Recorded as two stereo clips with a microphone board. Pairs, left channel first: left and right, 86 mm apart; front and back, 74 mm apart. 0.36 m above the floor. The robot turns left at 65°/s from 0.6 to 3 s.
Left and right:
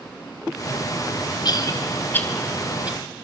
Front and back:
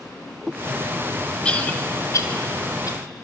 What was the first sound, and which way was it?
A cough, 75° left.